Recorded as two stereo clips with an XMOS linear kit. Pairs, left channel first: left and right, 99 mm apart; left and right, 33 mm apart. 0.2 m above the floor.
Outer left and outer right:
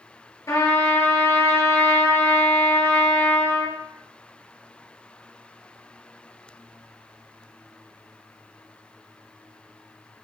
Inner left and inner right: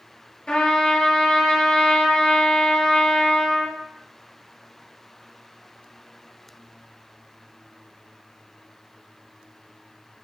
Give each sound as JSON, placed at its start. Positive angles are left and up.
{"t": 0.5, "sound": "a trumpet", "side_deg": 35, "distance_m": 2.5}